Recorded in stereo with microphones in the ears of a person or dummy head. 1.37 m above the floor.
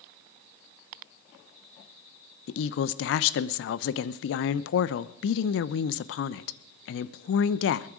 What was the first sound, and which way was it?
A woman speaking, 70° left (ahead or behind).